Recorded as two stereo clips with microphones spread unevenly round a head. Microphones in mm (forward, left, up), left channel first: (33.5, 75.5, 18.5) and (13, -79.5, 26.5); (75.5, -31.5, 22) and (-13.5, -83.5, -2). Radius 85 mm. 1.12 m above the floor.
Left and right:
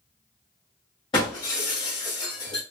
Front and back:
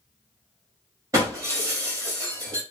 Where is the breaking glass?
140° left, 1.3 m.